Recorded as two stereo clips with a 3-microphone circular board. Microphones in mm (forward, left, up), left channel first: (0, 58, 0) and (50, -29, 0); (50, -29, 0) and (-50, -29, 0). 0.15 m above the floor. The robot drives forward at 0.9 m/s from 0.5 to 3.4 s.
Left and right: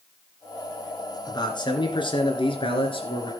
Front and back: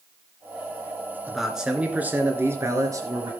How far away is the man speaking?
About 2.5 m.